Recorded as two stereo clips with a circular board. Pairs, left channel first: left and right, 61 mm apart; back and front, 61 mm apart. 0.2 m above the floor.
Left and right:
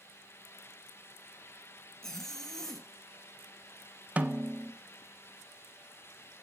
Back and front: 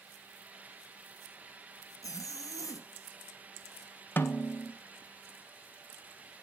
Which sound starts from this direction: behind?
A zipper, at 2.0 s.